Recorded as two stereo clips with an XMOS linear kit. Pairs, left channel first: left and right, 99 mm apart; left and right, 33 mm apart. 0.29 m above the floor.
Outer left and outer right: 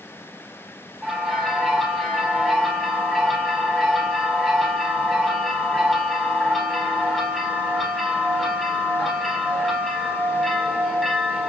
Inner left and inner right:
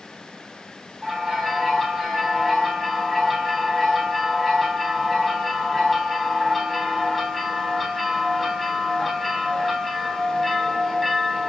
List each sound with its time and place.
1.0 s a bell: 5° left (ahead or behind), 2.5 m